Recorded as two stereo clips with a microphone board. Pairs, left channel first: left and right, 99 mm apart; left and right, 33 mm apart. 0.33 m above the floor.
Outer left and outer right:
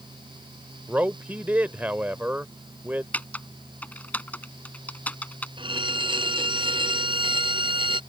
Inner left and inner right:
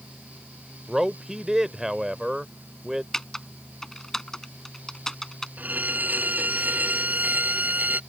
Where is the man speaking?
20° right (ahead or behind).